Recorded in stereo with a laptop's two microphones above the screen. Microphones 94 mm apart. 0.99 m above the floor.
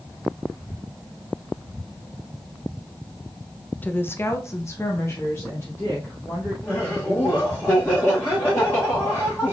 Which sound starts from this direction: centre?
A woman speaking, at 3.8 s.